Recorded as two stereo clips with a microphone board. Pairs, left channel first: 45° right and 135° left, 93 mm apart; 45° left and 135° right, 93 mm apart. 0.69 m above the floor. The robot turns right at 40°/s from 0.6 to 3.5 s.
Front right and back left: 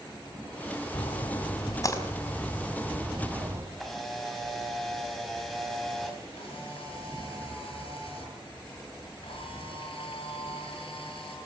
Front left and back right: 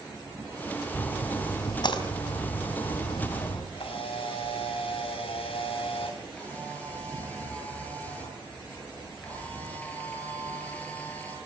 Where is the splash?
30° right, 4 m; by 3.6 s 75° left, 4 m.